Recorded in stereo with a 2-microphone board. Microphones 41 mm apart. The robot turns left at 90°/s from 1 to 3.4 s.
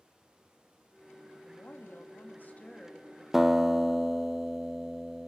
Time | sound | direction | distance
1.4 | a woman speaking | 145° left | 2.0 m
3.3 | a guitar | 5° right (ahead or behind) | 0.6 m